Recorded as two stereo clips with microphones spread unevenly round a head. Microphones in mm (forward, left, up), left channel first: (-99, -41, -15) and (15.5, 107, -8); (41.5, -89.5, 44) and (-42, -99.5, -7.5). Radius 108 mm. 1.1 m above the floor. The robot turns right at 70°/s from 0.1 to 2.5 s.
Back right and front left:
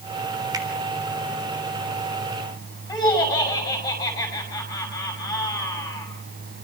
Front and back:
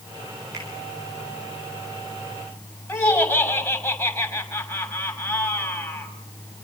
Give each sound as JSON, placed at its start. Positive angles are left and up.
{"t": 0.5, "sound": "a finger snap", "azimuth_deg": 120, "distance_m": 3.5}
{"t": 2.9, "sound": "laughter", "azimuth_deg": -55, "distance_m": 6.5}